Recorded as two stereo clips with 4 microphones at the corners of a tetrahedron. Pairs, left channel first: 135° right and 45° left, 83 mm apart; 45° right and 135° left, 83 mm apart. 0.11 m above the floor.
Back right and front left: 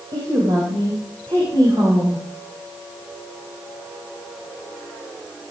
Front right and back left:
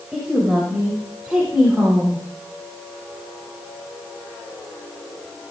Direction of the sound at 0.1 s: 55° left.